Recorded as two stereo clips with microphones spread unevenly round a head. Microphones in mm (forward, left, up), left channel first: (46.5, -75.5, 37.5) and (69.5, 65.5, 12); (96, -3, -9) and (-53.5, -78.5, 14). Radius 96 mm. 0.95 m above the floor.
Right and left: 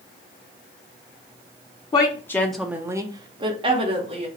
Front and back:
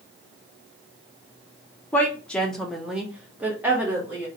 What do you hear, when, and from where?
1.9 s a woman speaking: 40° right, 0.7 m; by 4.3 s 125° left, 1.3 m